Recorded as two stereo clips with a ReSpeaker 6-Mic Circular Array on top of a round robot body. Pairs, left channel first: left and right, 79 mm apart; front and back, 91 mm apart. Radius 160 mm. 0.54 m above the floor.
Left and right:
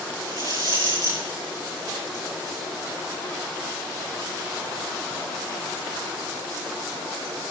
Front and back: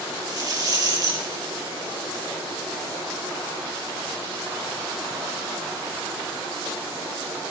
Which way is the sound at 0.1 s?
130° right.